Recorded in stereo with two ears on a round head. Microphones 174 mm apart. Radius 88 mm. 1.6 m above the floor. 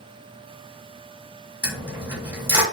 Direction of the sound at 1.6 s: 10° right (ahead or behind).